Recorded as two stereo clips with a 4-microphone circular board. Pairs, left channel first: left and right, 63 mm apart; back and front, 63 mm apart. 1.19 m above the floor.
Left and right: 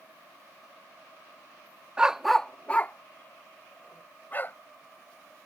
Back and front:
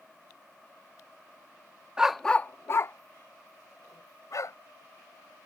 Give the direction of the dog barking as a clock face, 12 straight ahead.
2 o'clock.